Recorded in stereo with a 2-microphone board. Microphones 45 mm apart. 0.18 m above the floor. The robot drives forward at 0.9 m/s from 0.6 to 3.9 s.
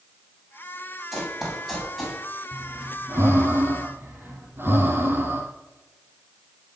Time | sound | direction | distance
1.1 | running footsteps | 10° right (ahead or behind) | 7.5 m
2.5 | breathing | 70° right (ahead or behind) | 2.5 m